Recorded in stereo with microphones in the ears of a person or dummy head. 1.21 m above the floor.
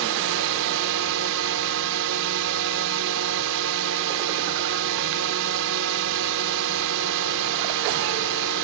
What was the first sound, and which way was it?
A drone, 70° right (ahead or behind).